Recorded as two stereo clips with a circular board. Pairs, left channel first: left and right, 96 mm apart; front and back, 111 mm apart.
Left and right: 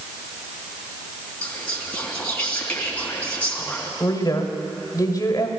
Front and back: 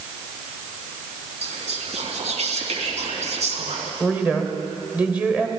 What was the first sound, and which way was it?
Whispering, 165° left.